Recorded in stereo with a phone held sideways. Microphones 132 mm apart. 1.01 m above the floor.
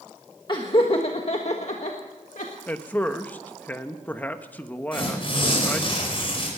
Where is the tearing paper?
40° left (ahead or behind), 5 m.